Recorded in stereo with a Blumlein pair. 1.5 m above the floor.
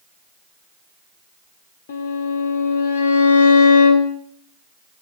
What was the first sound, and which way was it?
A violin, 55° left.